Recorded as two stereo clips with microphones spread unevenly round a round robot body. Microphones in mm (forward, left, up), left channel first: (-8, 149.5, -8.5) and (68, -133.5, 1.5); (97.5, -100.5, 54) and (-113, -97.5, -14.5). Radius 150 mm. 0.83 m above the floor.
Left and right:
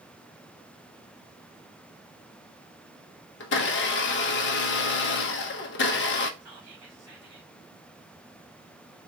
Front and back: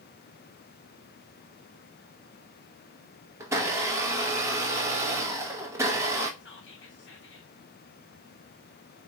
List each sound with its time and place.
3.4 s a blender: 135° left, 0.7 m
6.4 s whispering: 35° right, 2 m